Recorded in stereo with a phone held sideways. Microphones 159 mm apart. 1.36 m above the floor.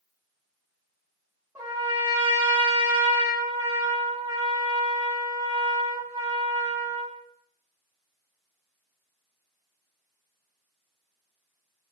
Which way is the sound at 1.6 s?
15° right (ahead or behind).